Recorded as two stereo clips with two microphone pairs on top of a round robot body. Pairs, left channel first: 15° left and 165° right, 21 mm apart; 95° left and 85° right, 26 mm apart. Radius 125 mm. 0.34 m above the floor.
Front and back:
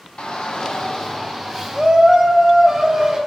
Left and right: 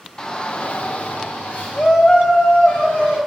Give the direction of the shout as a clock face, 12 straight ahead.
11 o'clock.